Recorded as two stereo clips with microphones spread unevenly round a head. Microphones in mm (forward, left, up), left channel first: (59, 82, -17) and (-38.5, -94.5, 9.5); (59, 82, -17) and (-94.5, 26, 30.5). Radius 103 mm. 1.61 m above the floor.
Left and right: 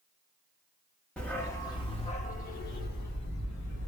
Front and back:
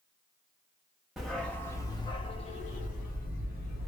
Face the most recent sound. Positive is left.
turn(degrees=45)